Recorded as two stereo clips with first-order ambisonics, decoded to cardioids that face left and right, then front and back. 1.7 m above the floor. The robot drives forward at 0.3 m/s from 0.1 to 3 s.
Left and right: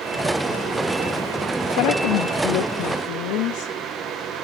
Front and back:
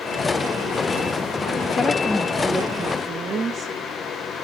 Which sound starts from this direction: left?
A woman speaking, at 1.8 s.